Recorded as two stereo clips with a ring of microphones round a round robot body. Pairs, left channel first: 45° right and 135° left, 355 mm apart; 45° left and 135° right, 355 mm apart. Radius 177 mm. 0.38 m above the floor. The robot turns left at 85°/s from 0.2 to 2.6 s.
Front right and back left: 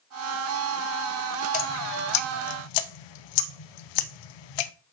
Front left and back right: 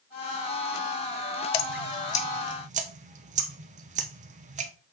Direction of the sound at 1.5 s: 25° left.